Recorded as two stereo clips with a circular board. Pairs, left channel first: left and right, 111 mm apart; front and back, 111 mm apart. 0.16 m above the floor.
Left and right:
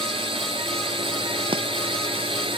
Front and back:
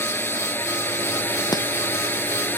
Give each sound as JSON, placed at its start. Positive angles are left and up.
{"t": 0.0, "sound": "a drone", "azimuth_deg": -70}
{"t": 1.5, "sound": "chopping", "azimuth_deg": -50}